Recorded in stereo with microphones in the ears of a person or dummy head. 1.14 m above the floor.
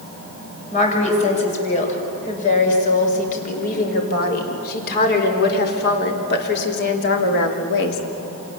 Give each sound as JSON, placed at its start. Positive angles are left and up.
{"t": 0.7, "sound": "a woman speaking", "side_deg": 40, "distance_m": 6.5}